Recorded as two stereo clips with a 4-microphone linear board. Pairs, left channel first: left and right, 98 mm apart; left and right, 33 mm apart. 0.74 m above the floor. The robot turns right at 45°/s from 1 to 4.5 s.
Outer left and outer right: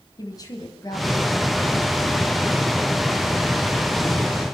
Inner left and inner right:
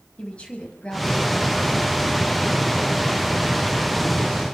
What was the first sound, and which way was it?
A woman speaking, 140° left.